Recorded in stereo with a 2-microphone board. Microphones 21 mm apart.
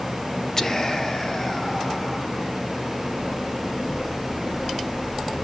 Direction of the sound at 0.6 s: 25° left (ahead or behind).